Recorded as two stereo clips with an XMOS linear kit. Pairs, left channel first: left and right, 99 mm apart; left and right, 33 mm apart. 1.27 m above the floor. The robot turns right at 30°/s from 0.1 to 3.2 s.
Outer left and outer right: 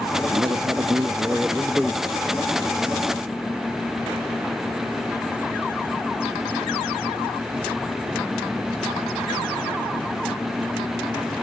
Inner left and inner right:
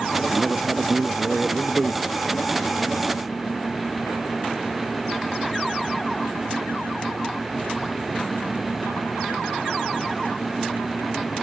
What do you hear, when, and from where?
0.3 s a man speaking: 50° right, 1.3 m; by 2.1 s 5° left, 1.3 m